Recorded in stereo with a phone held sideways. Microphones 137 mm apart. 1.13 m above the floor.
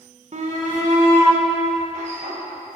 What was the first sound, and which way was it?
A shout, 60° right (ahead or behind).